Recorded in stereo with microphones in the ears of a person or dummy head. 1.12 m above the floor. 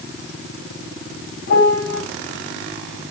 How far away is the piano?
About 7.5 m.